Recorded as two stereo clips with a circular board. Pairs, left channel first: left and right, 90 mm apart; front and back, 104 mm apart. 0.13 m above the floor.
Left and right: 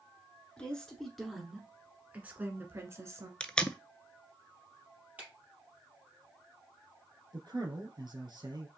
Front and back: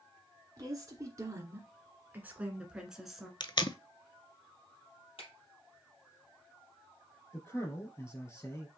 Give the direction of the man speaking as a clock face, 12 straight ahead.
2 o'clock.